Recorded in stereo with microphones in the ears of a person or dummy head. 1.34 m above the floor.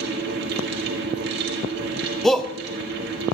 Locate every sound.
0.0 s a fan: 60° right (ahead or behind), 1.7 m
2.2 s a shout: 5° left (ahead or behind), 0.7 m